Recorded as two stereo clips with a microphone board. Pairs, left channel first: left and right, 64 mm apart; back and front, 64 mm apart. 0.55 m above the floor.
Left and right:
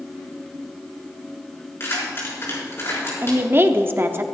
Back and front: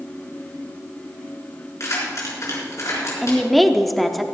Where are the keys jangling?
140° left, 5.5 m.